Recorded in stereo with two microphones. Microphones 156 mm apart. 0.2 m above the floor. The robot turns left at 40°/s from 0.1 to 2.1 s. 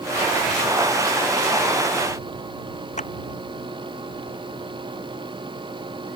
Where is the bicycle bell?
I don't hear a bicycle bell.